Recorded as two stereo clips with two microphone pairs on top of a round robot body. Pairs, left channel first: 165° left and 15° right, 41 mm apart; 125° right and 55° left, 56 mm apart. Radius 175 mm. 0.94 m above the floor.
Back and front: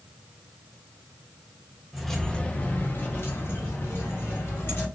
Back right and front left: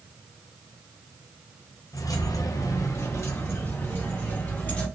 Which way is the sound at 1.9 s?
100° right.